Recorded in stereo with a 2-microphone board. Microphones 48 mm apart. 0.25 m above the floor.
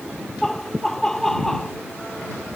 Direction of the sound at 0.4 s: 10° left (ahead or behind).